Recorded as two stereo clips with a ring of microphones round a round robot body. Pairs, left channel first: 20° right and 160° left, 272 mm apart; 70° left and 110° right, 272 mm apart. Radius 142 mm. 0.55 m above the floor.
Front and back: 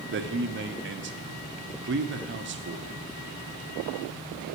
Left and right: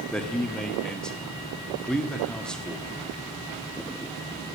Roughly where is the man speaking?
Behind left.